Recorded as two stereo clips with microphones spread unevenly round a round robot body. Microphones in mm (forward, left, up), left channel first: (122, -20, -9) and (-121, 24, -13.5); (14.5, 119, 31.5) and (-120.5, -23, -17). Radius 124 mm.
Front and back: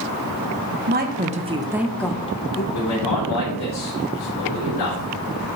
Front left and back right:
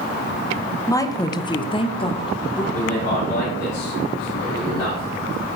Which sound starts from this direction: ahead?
A man speaking, at 2.7 s.